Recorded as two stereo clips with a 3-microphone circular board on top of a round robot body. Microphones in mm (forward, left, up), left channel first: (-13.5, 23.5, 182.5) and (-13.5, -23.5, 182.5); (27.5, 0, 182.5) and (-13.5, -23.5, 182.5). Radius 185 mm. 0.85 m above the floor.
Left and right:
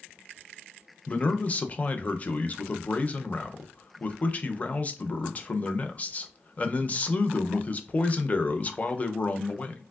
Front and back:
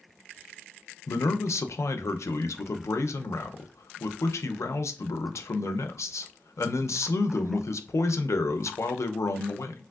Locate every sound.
1.1 s a man speaking: 35° left, 0.5 m